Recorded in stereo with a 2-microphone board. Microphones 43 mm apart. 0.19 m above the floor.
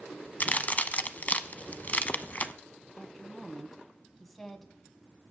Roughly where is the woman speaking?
Centre.